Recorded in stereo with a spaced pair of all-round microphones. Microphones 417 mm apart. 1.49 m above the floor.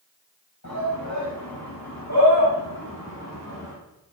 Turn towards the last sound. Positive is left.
turn(degrees=35)  # may be behind; listen again after turning